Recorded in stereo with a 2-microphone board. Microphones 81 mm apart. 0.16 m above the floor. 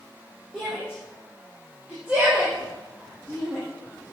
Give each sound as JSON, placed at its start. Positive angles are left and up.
{"t": 0.5, "sound": "a shout", "side_deg": -10, "distance_m": 5.0}